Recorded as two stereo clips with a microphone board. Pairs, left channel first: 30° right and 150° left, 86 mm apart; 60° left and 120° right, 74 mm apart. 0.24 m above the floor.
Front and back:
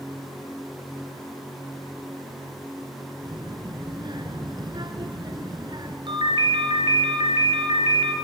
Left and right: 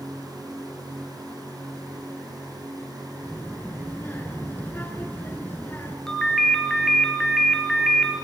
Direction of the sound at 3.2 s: 125° left.